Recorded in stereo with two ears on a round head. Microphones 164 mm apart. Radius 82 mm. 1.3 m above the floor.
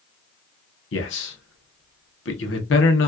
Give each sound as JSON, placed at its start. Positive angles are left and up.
{"t": 0.9, "sound": "a man speaking", "side_deg": 70, "distance_m": 1.0}